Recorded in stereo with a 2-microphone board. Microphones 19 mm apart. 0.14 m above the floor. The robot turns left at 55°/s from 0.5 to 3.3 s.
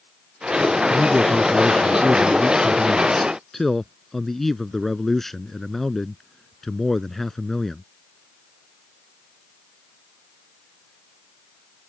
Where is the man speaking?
155° left; by 7.8 s 20° left.